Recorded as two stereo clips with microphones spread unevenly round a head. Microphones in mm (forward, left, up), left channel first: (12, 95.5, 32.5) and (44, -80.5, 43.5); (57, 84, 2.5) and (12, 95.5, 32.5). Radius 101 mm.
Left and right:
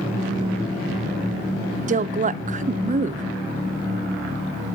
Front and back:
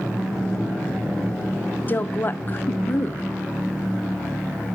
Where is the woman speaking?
30° right, 0.5 m.